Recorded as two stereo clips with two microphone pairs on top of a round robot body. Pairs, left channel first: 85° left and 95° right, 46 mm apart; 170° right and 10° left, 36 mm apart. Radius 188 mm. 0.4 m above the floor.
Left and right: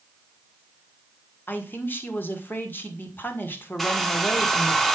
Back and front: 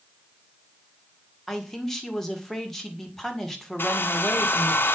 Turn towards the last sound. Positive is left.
turn(degrees=170)